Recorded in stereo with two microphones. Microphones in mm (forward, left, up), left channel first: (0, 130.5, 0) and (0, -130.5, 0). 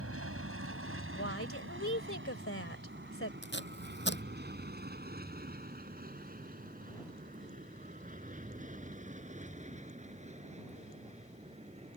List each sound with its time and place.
0.0 s an aircraft: 55° right (ahead or behind); by 12.0 s 25° right (ahead or behind)
1.1 s a woman speaking: 55° left (ahead or behind)
3.4 s tape being pulled: 45° left (ahead or behind)